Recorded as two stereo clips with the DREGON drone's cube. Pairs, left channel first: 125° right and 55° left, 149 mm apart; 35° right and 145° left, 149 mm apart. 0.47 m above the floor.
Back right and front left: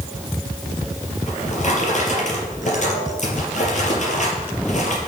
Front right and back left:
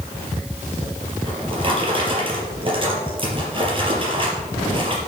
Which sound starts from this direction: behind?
A drawer, at 1.3 s.